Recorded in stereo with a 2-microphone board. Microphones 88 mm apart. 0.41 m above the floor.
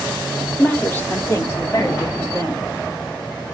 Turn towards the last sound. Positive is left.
turn(degrees=40)  # may be behind; listen again after turning